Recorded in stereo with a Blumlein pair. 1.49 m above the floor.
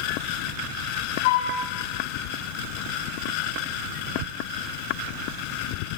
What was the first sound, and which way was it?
A flute, 50° left.